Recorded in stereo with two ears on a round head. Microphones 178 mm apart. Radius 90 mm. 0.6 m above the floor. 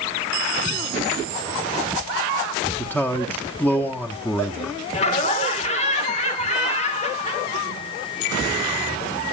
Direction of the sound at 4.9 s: 35° left (ahead or behind).